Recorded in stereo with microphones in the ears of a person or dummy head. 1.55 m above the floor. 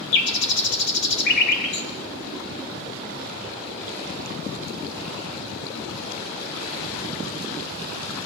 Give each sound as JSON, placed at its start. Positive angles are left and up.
{"t": 0.1, "sound": "a bird", "side_deg": 55, "distance_m": 1.5}